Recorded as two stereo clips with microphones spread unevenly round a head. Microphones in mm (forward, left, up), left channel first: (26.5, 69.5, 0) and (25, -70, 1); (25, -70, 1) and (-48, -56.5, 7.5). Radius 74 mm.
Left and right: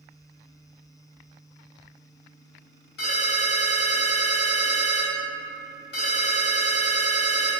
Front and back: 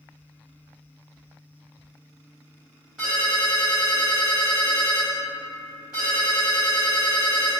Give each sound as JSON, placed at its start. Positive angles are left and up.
{"t": 3.0, "sound": "a ringtone", "azimuth_deg": 85, "distance_m": 1.6}